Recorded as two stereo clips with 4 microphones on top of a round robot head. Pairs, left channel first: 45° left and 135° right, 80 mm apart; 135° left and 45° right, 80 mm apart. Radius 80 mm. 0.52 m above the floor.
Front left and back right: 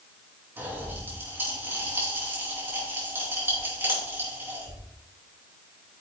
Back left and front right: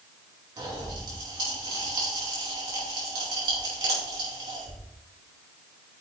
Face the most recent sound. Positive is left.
turn(degrees=-75)